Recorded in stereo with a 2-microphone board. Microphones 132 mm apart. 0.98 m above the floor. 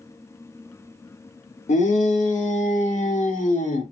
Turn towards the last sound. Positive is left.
turn(degrees=85)